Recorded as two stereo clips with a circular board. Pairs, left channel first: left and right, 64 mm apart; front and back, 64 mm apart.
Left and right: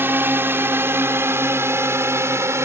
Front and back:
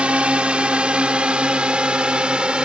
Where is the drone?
115° right; by 2.6 s 110° right.